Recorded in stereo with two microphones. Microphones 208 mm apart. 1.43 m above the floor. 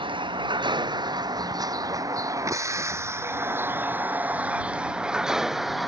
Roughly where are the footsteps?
No footsteps in this recording.